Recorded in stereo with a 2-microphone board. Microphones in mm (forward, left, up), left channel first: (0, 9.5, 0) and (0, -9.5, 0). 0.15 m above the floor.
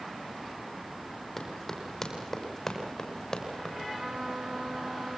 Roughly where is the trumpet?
Right.